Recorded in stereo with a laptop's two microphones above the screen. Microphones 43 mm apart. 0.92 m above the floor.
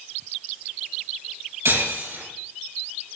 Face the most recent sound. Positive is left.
turn(degrees=-85)